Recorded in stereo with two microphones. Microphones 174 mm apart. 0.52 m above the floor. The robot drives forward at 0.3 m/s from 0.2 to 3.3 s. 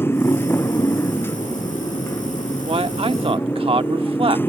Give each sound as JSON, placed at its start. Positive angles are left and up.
{"t": 0.0, "sound": "a motorcycle", "side_deg": 15}
{"t": 2.7, "sound": "a man speaking", "side_deg": -35}